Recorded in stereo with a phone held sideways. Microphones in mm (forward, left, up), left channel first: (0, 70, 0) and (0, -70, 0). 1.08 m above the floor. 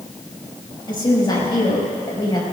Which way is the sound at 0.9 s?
30° left (ahead or behind).